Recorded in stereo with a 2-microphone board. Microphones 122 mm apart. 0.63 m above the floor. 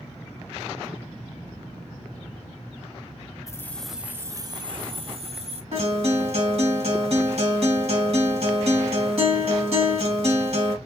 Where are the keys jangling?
25° left (ahead or behind), 0.6 m; by 5.6 s 60° right (ahead or behind), 1.2 m.